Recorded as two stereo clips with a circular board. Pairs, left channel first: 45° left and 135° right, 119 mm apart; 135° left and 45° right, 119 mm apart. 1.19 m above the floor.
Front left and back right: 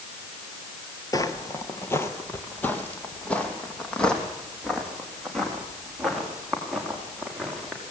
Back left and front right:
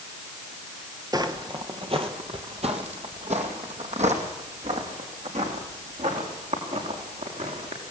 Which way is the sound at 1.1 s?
Straight ahead.